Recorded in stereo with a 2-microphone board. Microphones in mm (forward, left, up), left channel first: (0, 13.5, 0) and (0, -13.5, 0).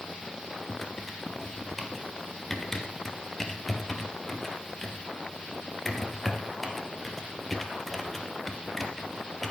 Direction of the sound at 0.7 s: 10° left (ahead or behind).